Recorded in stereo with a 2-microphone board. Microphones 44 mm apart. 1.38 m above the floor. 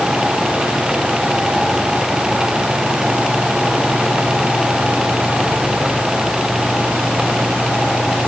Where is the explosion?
No explosion in this recording.